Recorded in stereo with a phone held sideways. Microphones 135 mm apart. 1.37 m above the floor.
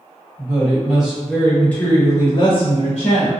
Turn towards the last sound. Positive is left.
turn(degrees=60)  # may be behind; listen again after turning